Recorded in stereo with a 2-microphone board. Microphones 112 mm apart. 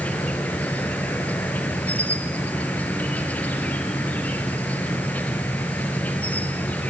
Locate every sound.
0.0 s an insect: 15° left (ahead or behind), 3 m